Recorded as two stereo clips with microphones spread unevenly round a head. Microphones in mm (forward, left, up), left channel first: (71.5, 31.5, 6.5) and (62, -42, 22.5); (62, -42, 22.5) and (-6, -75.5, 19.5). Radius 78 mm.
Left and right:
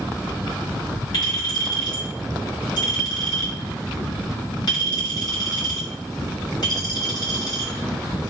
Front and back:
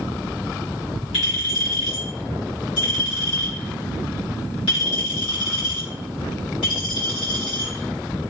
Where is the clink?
55° left, 2 m.